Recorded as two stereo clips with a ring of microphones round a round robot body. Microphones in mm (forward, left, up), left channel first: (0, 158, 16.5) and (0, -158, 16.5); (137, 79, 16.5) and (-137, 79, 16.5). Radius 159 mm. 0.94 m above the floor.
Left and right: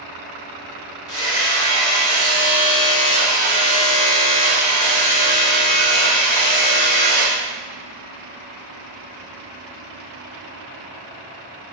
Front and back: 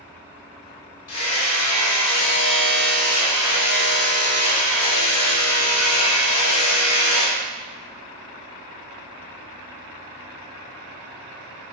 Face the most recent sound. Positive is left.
turn(degrees=15)